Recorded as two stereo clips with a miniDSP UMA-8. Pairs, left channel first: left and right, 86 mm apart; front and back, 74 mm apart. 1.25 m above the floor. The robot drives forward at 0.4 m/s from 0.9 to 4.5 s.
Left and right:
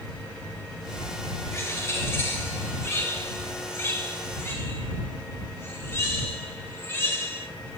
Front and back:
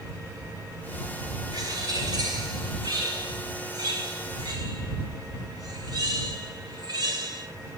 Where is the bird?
150° left, 4 m; by 7.5 s 155° left, 5.5 m.